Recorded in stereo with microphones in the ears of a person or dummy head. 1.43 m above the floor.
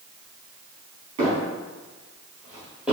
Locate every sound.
1.2 s footsteps: 30° right (ahead or behind), 2.0 m; by 2.9 s centre (ahead or behind), 2.5 m